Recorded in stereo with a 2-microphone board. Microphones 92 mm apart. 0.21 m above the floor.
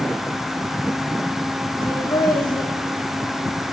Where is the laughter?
70° left (ahead or behind), 8 m.